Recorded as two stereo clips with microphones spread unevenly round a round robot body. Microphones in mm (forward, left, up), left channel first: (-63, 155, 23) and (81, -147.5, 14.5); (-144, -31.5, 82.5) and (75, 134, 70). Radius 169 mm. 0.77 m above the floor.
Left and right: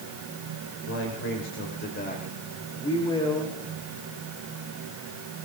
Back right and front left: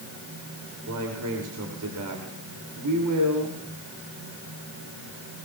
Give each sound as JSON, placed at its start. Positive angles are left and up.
{"t": 0.9, "sound": "a man speaking", "azimuth_deg": 65, "distance_m": 3.0}